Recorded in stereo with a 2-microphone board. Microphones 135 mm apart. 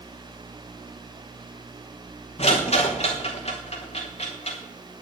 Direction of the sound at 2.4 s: 50° left (ahead or behind).